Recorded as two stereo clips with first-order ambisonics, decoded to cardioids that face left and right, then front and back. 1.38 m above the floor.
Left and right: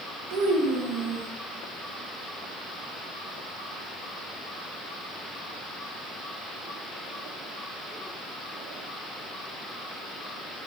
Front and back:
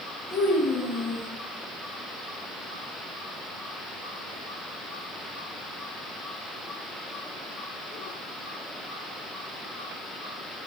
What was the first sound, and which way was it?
A child speaking, 65° right.